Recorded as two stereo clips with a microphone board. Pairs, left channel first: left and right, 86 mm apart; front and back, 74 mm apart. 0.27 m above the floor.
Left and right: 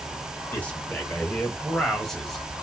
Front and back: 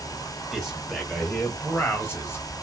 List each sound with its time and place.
0.5 s a man speaking: 95° left, 1.6 m; by 2.5 s straight ahead, 1.8 m